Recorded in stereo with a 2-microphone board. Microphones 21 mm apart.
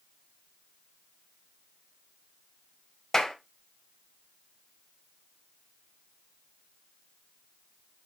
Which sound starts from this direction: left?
A clap, at 3.1 s.